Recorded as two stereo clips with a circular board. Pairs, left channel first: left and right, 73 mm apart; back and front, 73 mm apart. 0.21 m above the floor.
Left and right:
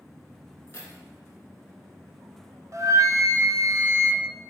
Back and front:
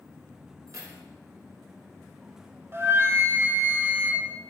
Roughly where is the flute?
Ahead right.